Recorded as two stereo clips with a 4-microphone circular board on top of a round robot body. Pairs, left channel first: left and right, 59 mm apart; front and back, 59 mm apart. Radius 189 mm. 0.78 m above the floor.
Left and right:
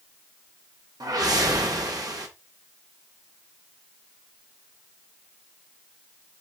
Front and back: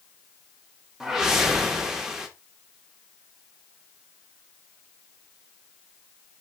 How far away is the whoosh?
About 1.9 m.